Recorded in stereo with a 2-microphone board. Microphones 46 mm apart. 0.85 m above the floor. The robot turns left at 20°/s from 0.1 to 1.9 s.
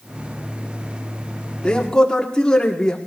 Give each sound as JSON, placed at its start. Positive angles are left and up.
{"t": 1.6, "sound": "a man speaking", "side_deg": 20, "distance_m": 2.0}